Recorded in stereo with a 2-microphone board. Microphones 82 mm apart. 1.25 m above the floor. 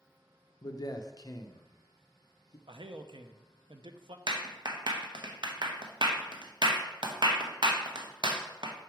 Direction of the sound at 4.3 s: 65° right (ahead or behind).